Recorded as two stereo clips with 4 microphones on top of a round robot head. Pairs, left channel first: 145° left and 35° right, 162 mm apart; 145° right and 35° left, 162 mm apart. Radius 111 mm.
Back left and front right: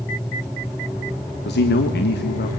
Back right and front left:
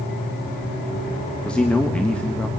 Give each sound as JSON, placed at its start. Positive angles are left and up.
{"t": 1.4, "sound": "a man speaking", "azimuth_deg": 135, "distance_m": 1.4}